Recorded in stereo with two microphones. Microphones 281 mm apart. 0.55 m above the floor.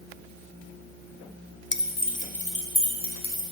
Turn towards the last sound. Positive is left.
turn(degrees=15)  # may be behind; listen again after turning